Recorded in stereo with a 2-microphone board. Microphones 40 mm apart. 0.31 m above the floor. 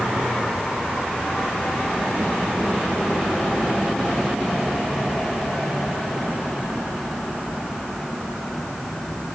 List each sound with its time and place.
Only background noise.